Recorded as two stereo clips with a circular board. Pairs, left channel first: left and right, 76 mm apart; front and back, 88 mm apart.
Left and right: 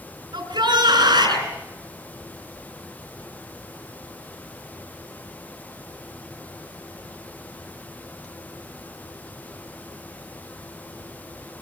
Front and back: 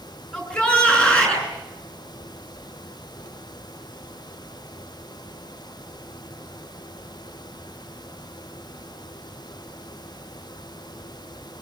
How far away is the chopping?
I don't hear chopping.